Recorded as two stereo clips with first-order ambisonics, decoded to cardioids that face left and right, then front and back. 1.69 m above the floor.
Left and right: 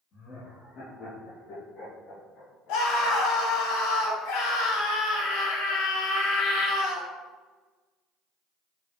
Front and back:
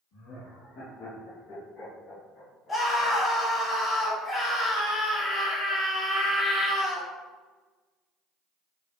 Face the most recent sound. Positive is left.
turn(degrees=75)